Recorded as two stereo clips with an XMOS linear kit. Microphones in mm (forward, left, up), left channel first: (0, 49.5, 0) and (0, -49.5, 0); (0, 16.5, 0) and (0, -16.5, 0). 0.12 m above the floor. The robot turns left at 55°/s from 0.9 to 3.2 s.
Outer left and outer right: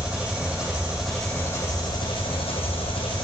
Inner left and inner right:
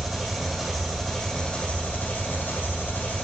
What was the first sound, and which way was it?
An engine running, 170° right.